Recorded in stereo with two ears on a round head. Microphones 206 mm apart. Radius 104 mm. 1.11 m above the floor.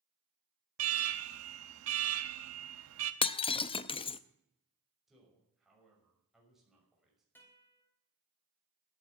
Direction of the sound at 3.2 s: 20° left (ahead or behind).